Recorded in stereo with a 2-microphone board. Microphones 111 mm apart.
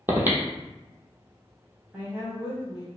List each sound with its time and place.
0.1 s breathing: 20° right (ahead or behind), 0.7 m
1.9 s a woman speaking: 15° right (ahead or behind), 1.4 m